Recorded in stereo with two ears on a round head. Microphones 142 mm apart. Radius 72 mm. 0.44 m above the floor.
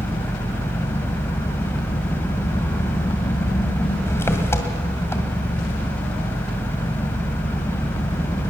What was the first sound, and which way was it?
An engine running, 15° left (ahead or behind).